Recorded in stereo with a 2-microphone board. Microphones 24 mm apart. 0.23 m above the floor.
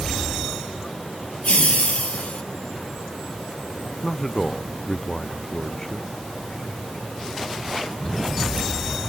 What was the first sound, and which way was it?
Laughter, 75° left (ahead or behind).